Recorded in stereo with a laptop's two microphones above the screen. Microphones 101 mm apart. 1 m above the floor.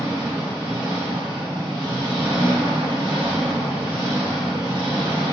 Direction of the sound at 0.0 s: 60° right (ahead or behind).